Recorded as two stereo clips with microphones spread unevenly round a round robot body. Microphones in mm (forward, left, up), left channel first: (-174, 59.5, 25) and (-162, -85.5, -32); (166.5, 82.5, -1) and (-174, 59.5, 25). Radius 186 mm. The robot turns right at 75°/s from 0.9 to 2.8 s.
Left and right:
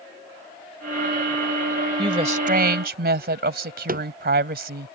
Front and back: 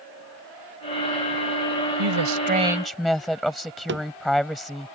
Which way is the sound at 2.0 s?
145° right.